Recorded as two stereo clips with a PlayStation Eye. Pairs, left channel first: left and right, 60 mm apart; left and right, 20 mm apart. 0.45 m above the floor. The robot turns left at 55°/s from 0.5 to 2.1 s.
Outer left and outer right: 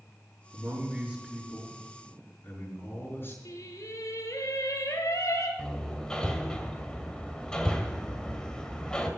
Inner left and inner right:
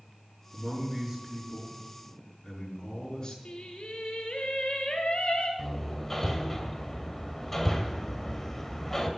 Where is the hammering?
10° left (ahead or behind), 2 m.